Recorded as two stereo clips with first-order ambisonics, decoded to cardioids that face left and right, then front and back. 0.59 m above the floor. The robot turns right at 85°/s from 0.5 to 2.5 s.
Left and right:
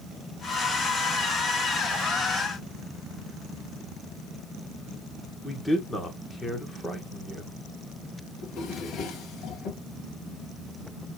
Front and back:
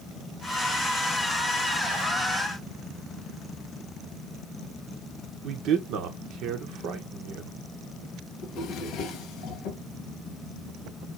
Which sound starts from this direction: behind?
A man speaking, at 5.4 s.